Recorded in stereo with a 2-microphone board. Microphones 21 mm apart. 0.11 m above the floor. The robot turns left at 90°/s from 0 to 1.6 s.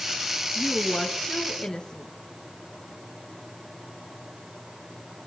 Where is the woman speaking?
155° right, 1.7 m; by 2.1 s 110° left, 1.7 m.